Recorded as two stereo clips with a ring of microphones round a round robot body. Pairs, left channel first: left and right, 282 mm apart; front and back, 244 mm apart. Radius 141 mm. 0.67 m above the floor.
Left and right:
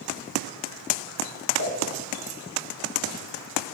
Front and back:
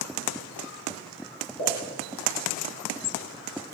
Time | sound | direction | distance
1.6 | a pop | 40° left | 2.5 m